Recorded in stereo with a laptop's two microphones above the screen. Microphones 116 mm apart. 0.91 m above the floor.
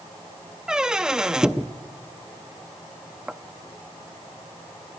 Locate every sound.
0.7 s a squeak: 5° right (ahead or behind), 0.6 m